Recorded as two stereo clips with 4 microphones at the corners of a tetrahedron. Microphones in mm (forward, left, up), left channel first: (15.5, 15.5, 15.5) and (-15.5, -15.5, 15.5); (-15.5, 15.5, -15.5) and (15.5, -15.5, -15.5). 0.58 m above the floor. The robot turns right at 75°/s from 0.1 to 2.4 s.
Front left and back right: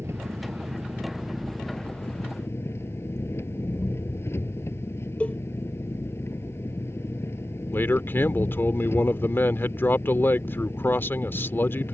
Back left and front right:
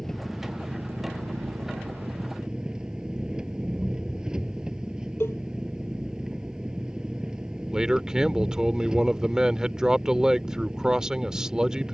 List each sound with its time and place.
0.0 s an engine running: 145° right; by 11.9 s 25° left
5.2 s a cowbell: 105° left
7.7 s a man speaking: 25° left